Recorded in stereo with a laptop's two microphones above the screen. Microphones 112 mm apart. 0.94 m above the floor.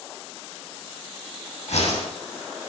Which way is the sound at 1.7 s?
85° left.